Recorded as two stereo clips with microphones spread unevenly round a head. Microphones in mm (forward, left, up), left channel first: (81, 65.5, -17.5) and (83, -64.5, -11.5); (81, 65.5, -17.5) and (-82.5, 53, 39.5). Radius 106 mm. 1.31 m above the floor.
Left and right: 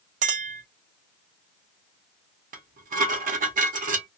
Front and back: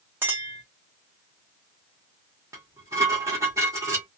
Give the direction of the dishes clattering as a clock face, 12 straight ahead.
4 o'clock.